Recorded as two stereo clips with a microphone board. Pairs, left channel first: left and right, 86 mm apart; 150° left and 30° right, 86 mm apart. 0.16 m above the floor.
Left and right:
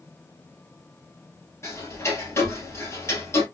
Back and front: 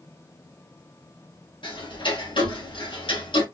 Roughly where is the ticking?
Behind left.